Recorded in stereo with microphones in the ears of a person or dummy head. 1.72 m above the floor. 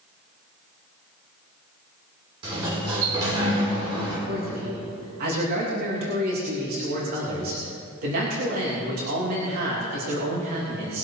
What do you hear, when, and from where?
2.4 s a sliding door: 30° right (ahead or behind), 4.5 m
4.3 s a man speaking: 55° right (ahead or behind), 3 m